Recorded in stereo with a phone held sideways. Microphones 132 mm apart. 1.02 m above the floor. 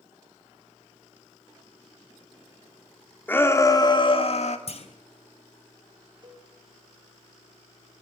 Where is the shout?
15° left (ahead or behind), 3 m; by 4.6 s 60° left (ahead or behind), 2.5 m.